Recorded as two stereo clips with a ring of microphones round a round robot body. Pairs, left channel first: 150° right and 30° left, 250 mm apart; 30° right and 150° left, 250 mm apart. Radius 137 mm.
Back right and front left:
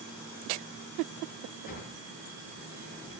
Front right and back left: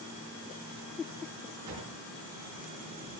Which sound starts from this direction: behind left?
A drawer, at 1.7 s.